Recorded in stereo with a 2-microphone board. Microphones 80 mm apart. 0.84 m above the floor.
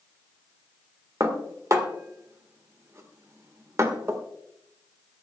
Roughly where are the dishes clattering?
Right.